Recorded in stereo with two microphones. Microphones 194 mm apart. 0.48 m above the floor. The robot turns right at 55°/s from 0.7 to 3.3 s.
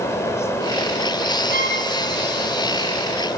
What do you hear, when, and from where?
1.5 s a violin: 70° right (ahead or behind), 2.5 m; by 1.8 s 55° right (ahead or behind), 2.5 m